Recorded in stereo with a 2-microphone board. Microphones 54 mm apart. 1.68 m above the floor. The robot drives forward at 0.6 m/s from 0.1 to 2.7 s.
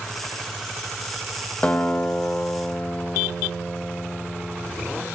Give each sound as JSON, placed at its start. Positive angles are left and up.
{"t": 1.6, "sound": "a guitar", "side_deg": 25, "distance_m": 1.6}